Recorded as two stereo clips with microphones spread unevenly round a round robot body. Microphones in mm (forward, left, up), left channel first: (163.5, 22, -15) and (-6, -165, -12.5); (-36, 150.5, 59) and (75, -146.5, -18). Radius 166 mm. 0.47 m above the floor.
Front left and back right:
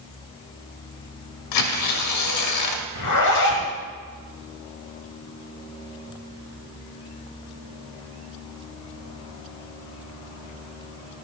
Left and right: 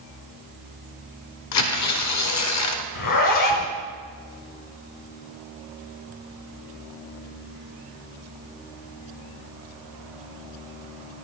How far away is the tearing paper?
About 1.0 m.